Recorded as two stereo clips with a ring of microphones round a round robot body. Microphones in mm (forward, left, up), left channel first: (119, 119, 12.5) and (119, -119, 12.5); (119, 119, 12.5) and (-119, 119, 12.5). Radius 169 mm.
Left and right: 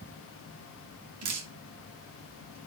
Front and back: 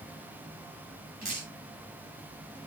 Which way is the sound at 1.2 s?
115° right.